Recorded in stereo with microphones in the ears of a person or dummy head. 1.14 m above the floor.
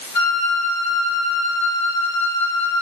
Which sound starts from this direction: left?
A flute, at 0.1 s.